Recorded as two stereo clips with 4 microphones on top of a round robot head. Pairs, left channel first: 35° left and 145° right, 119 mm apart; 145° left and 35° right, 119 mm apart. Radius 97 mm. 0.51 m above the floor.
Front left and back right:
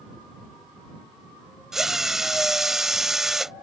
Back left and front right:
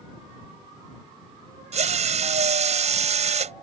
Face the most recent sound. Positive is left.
turn(degrees=-55)